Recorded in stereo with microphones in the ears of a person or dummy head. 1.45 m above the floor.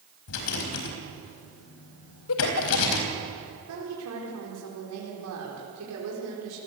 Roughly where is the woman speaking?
Right.